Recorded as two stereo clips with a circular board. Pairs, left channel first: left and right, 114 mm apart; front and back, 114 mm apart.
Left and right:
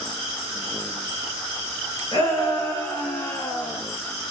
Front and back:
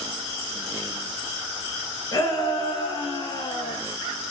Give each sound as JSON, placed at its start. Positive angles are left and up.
{"t": 2.1, "sound": "a shout", "azimuth_deg": 45, "distance_m": 3.0}